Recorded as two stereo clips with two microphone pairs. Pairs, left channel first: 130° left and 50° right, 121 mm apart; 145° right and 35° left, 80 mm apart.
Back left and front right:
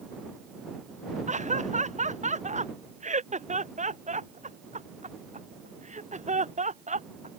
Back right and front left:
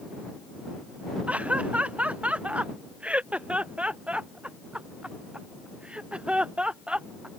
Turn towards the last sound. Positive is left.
turn(degrees=-45)